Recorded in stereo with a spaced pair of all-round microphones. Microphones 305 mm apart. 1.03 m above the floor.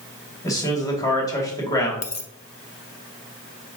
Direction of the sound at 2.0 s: 55° left (ahead or behind).